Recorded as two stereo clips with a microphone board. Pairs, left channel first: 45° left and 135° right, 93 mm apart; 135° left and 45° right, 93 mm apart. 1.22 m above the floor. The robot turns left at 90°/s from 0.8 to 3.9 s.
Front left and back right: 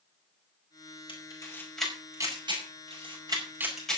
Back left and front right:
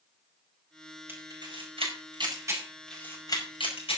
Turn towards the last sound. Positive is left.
turn(degrees=130)